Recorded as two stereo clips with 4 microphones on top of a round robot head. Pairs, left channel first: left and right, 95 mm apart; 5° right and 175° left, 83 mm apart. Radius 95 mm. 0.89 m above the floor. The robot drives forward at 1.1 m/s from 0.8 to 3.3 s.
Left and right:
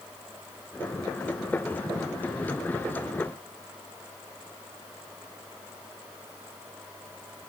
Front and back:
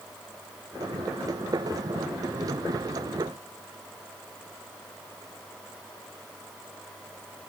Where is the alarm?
No alarm in this recording.